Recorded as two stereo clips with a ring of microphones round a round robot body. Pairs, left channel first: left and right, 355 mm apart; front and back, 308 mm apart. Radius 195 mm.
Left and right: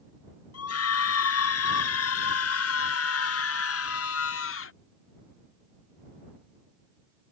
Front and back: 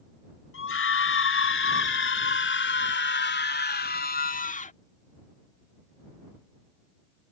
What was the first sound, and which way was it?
A scream, 45° left.